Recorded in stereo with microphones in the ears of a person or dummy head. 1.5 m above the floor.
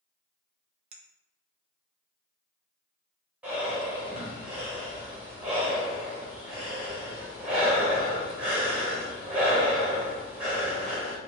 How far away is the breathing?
About 1.0 m.